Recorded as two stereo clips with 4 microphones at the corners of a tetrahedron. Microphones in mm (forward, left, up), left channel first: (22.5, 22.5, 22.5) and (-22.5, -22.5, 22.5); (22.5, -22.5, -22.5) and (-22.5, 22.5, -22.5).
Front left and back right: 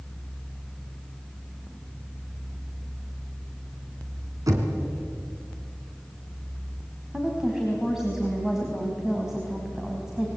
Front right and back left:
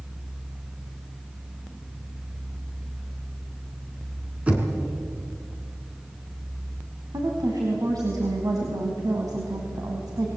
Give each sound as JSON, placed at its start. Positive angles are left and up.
{"t": 4.5, "sound": "knocking", "azimuth_deg": -155, "distance_m": 3.5}
{"t": 7.1, "sound": "a woman speaking", "azimuth_deg": 145, "distance_m": 4.0}